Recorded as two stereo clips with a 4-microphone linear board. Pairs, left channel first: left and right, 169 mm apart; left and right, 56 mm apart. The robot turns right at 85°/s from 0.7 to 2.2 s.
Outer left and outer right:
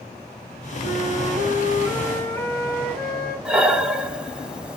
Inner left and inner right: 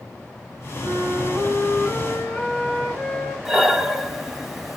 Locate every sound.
0.8 s a flute: 110° right, 3.5 m; by 3.4 s 5° left, 3.5 m
3.5 s breathing: 5° right (ahead or behind), 0.8 m